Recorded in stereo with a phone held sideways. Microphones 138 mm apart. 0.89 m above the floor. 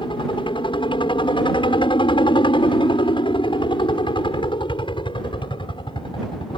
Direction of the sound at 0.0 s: 40° left (ahead or behind).